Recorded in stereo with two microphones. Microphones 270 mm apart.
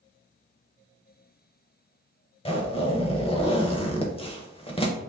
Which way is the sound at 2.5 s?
20° left (ahead or behind).